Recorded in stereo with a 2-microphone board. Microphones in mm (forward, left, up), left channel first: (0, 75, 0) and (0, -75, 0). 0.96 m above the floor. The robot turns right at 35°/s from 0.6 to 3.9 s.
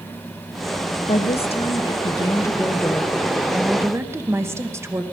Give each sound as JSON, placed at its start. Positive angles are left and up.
{"t": 1.1, "sound": "a woman speaking", "azimuth_deg": 105, "distance_m": 1.0}